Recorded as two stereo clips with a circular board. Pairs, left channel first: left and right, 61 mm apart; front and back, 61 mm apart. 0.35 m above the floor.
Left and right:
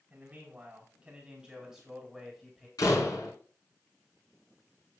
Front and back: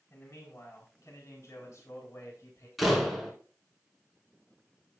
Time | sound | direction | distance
0.1 | a man speaking | 30° right | 3 m
2.8 | a door slam | 90° left | 2.5 m